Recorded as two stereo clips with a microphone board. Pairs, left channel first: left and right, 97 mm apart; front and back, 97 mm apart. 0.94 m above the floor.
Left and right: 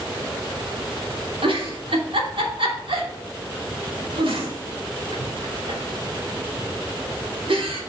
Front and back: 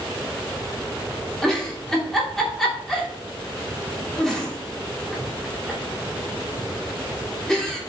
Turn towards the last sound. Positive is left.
turn(degrees=-85)